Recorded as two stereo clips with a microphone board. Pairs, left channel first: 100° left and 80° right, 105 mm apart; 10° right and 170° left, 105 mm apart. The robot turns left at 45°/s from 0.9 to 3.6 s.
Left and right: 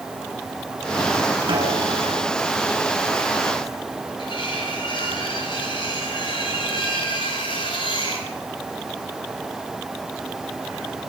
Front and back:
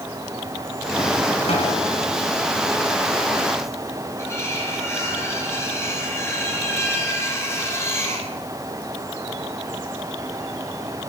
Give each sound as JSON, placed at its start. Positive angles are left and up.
{"t": 1.5, "sound": "a snare drum", "azimuth_deg": -35, "distance_m": 6.5}
{"t": 4.2, "sound": "cutlery clinking", "azimuth_deg": 55, "distance_m": 5.5}